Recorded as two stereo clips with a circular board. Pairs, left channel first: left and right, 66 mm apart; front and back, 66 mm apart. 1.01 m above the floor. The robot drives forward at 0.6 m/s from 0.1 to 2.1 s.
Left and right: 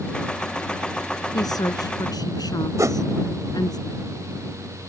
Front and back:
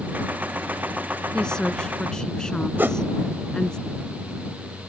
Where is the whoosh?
125° right.